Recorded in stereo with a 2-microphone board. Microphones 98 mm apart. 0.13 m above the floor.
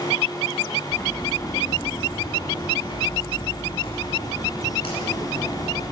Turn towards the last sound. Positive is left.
turn(degrees=70)  # may be behind; listen again after turning